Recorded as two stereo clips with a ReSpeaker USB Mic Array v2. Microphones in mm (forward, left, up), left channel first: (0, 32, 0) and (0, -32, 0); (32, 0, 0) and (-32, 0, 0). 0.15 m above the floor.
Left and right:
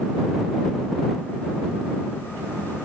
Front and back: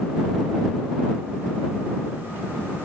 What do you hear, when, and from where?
Only background noise.